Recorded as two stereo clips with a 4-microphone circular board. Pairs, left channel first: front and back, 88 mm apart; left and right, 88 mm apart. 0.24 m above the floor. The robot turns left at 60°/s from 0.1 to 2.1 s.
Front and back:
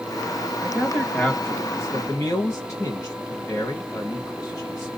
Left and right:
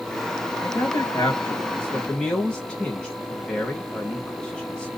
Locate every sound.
0.6 s a man speaking: 100° left, 1.1 m; by 4.9 s 10° left, 1.1 m